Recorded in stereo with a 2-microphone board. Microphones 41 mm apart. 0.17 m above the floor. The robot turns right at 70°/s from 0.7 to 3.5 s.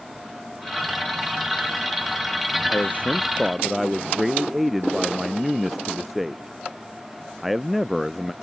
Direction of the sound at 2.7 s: 130° left.